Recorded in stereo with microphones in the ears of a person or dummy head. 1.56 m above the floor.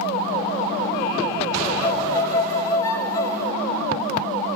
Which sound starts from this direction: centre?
A violin, at 1.8 s.